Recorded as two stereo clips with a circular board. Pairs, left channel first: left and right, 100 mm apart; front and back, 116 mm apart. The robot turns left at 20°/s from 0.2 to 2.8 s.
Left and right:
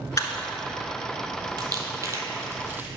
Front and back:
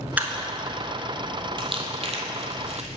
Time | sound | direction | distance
0.2 | a camera shutter | 115° left | 0.8 m
1.6 | crumpling | 135° right | 0.9 m